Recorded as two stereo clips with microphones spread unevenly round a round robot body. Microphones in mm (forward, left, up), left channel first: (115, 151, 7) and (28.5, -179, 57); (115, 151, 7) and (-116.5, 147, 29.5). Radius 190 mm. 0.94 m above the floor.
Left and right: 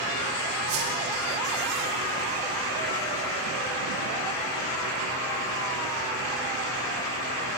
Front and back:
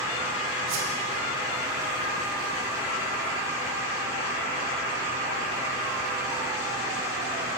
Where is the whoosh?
160° right, 5 m.